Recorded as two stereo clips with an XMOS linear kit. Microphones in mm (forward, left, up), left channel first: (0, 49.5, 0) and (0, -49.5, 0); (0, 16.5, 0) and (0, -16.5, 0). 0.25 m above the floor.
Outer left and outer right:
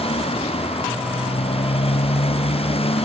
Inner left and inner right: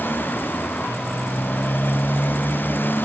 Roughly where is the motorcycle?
Left.